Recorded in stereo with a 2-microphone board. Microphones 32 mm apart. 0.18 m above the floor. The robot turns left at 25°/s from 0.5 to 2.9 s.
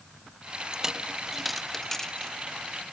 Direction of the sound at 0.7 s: 15° right (ahead or behind).